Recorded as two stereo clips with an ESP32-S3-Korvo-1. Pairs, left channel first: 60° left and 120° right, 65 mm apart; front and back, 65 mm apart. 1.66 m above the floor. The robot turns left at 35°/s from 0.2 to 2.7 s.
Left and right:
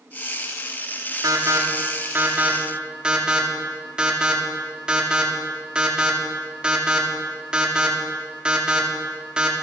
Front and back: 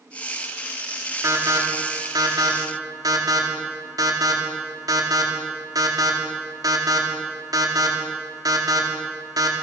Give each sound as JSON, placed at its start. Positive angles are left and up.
{"t": 1.2, "sound": "an alarm", "azimuth_deg": -145, "distance_m": 4.0}